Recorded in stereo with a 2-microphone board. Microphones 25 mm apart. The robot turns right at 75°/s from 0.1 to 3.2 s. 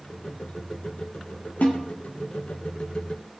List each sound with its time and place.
1.6 s a snare drum: 70° left (ahead or behind), 3 m; by 1.8 s 55° left (ahead or behind), 3 m